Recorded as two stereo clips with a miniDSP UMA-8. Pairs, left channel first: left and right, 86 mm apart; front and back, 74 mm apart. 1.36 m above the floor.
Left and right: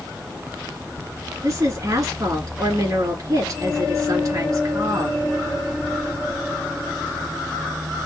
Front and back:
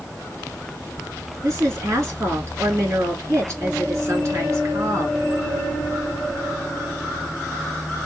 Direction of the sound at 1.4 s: 130° right.